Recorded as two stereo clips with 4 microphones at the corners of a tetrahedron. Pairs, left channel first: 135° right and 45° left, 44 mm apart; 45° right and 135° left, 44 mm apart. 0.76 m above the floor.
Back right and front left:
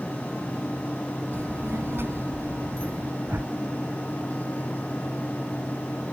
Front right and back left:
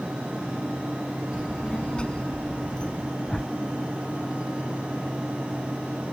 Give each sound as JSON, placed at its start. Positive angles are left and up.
{"t": 1.3, "sound": "a child speaking", "azimuth_deg": 25}
{"t": 3.2, "sound": "a whoosh", "azimuth_deg": 35}